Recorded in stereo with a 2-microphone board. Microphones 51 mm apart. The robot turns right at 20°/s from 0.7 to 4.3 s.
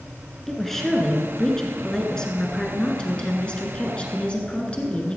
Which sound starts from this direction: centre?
A woman speaking, at 0.5 s.